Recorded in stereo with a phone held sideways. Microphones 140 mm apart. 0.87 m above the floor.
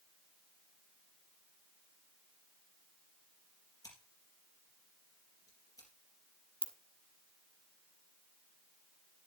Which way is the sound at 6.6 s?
40° left (ahead or behind).